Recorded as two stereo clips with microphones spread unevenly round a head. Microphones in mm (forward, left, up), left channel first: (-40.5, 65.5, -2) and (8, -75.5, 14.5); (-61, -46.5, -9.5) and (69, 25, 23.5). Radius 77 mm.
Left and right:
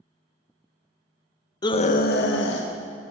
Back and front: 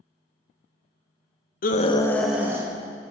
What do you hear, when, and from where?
1.6 s a scream: 175° left, 0.9 m; by 2.7 s 105° left, 1.6 m